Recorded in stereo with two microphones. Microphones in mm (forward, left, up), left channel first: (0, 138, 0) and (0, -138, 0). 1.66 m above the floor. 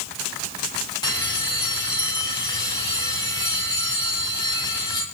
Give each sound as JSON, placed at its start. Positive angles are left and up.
{"t": 1.0, "sound": "a bell", "side_deg": 15, "distance_m": 4.0}